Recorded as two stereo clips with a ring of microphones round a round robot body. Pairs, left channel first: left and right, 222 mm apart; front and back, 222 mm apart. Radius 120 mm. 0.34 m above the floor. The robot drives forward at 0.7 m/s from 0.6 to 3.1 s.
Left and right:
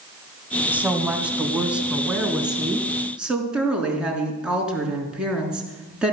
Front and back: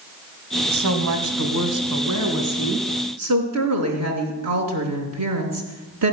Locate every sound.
0.7 s a woman speaking: 175° right, 1.9 m